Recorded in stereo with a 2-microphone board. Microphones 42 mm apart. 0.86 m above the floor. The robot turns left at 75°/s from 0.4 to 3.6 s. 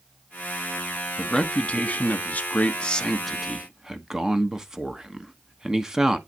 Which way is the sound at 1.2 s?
165° left.